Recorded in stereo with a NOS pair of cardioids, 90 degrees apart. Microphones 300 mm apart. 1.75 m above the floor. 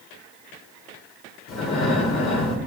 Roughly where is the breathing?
Ahead left.